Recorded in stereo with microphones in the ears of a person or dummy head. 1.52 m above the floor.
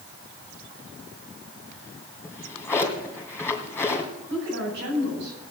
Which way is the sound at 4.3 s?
60° right (ahead or behind).